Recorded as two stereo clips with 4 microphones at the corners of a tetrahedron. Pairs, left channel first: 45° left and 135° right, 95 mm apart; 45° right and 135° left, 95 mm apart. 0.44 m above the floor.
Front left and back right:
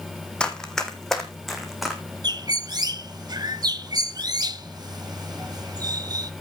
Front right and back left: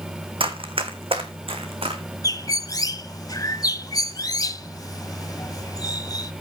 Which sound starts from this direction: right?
A bird, at 2.2 s.